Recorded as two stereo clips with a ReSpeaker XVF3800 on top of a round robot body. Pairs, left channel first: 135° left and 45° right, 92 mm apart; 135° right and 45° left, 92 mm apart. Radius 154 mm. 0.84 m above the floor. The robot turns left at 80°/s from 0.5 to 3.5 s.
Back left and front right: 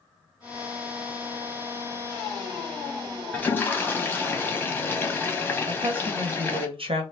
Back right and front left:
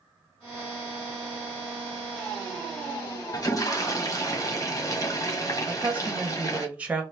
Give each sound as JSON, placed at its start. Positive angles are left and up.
{"t": 3.3, "sound": "a toilet flushing", "azimuth_deg": -150, "distance_m": 1.1}
{"t": 5.7, "sound": "a woman speaking", "azimuth_deg": -30, "distance_m": 1.1}